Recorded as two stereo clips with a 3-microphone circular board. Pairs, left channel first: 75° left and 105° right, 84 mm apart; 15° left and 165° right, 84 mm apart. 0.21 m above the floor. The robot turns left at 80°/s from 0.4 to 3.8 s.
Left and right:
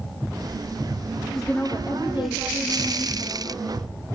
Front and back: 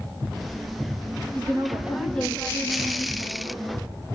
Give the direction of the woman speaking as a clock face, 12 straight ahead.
7 o'clock.